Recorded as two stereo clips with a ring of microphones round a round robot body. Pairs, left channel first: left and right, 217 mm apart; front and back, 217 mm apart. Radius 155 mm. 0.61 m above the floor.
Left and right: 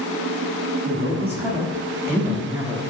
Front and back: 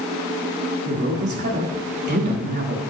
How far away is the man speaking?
About 1.0 m.